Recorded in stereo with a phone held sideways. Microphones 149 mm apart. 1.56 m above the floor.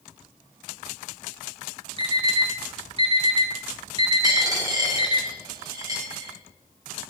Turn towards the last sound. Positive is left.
turn(degrees=-25)  # may be behind; listen again after turning